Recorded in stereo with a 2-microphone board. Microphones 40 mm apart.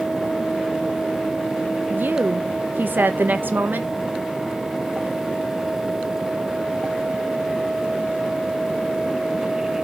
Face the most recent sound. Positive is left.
turn(degrees=-55)  # may be behind; listen again after turning